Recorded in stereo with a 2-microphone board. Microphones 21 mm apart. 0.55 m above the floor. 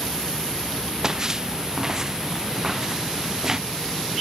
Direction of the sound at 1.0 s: 30° right (ahead or behind).